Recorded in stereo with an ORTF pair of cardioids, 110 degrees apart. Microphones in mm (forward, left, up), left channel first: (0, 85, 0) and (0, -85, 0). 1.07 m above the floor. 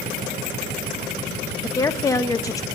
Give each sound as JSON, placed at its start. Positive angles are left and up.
{"t": 1.6, "sound": "a woman speaking", "azimuth_deg": 20, "distance_m": 1.0}